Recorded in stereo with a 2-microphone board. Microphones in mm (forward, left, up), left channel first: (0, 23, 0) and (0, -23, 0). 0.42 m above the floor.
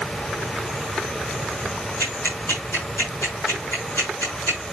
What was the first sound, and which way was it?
Ticking, 80° left.